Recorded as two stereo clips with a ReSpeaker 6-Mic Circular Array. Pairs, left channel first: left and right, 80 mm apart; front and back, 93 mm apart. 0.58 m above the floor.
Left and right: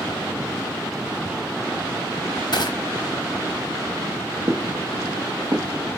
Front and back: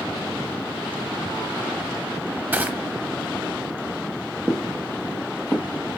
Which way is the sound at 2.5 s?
110° left.